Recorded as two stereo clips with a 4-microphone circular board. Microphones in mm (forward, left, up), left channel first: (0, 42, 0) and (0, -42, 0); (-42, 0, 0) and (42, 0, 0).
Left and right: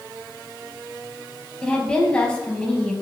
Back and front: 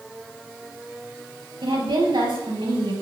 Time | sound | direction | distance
1.6 | a woman speaking | 15° left | 4.5 m